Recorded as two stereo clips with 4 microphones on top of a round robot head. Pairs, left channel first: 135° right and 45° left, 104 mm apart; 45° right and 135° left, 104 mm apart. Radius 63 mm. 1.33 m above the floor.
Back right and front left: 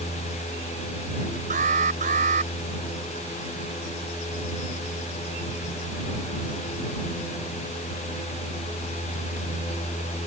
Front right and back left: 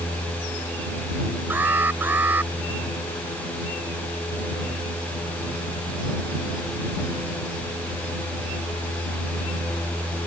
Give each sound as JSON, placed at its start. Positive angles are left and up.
{"t": 1.5, "sound": "an alarm", "azimuth_deg": 60}